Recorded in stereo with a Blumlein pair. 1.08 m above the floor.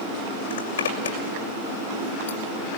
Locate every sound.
0.5 s a zipper: 65° left, 6 m